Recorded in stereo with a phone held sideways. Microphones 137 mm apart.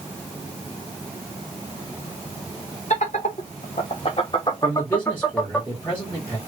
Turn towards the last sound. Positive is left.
turn(degrees=15)  # may be behind; listen again after turning